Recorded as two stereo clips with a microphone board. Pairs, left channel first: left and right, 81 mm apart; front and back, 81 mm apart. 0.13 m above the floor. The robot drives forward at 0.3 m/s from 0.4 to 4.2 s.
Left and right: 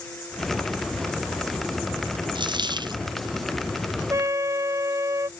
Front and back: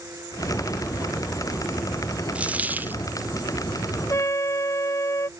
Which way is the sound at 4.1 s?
45° right.